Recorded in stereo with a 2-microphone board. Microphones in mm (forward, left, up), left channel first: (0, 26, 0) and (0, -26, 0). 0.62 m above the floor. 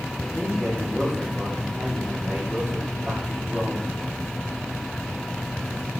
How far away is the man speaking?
About 1.5 m.